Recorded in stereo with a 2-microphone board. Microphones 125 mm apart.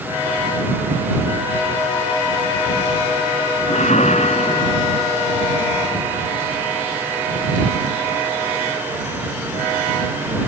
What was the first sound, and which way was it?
A whoosh, 65° left (ahead or behind).